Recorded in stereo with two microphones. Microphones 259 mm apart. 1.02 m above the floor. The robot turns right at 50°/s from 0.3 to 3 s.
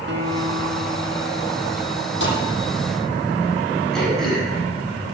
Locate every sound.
0.1 s a guitar: 50° right, 2 m; by 2.1 s 40° left, 2 m
2.2 s a thud: 50° left (ahead or behind), 8.5 m; by 2.4 s 40° left (ahead or behind), 8.5 m
3.9 s throat clearing: centre (ahead or behind), 8.5 m